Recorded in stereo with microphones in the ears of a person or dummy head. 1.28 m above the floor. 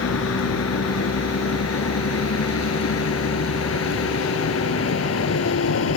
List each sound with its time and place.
0.0 s a vehicle: 85° left; by 6.0 s 80° left